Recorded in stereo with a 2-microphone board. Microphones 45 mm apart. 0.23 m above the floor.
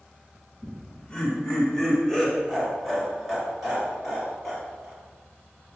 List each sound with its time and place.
0.6 s laughter: 20° left (ahead or behind), 1.6 m; by 5.0 s 10° right (ahead or behind), 4 m